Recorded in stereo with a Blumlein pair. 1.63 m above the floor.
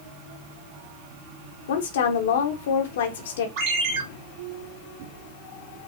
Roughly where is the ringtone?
Ahead right.